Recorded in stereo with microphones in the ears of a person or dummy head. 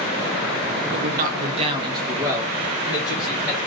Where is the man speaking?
65° right (ahead or behind), 0.6 m; by 3.6 s centre (ahead or behind), 1.7 m.